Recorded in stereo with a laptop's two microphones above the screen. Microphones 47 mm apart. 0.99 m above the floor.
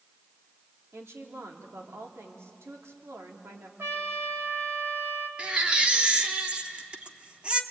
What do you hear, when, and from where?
0.9 s a woman speaking: 75° right (ahead or behind), 2.5 m
3.8 s a trumpet: 65° right (ahead or behind), 2.0 m
5.4 s a baby crying: 25° right (ahead or behind), 1.0 m